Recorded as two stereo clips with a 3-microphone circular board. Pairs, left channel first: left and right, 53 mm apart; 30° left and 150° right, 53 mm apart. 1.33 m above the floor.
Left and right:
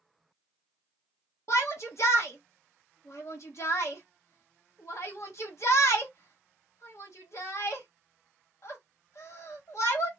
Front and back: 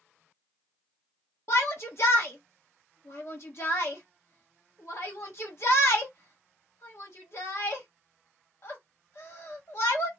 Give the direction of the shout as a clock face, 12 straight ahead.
10 o'clock.